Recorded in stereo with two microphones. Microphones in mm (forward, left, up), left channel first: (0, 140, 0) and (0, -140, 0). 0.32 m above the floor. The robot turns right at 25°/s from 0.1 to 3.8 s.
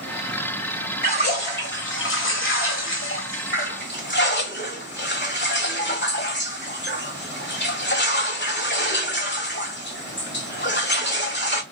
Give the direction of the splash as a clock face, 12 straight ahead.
10 o'clock.